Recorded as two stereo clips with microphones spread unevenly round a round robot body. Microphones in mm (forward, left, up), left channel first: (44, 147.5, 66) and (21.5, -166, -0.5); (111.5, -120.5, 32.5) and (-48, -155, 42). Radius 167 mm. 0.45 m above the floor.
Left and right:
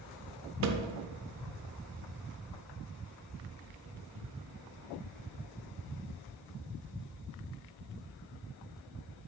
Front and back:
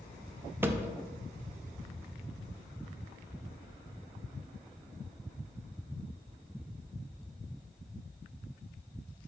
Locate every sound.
0.6 s a thud: 90° right, 0.5 m